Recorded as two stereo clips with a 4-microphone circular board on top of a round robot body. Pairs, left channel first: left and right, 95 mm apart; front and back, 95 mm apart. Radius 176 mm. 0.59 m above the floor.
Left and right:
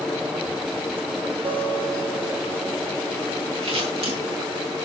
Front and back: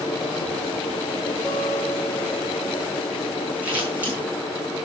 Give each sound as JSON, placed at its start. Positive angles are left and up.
{"t": 1.4, "sound": "a guitar", "azimuth_deg": -80, "distance_m": 5.0}
{"t": 3.6, "sound": "scissors", "azimuth_deg": -110, "distance_m": 10.0}